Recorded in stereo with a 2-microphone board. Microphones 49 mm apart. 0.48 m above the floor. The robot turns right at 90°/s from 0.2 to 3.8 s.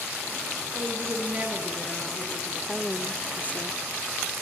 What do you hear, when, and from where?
0.7 s a woman speaking: 95° right, 6 m; by 2.6 s 70° left, 6 m
2.7 s a woman speaking: 20° right, 1.1 m; by 3.8 s 85° left, 1.1 m